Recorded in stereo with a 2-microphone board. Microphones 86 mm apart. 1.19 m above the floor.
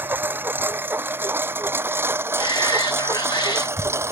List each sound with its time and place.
0.0 s a lawn mower: 25° right (ahead or behind); by 4.1 s 30° right (ahead or behind)
2.4 s a shout: 70° left (ahead or behind)